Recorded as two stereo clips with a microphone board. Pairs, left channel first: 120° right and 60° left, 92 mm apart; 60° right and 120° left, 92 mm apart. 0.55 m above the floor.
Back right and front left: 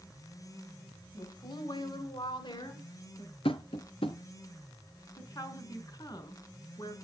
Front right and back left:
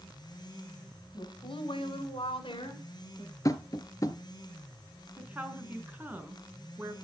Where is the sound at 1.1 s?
85° right, 6 m; by 3.4 s 90° right, 7 m.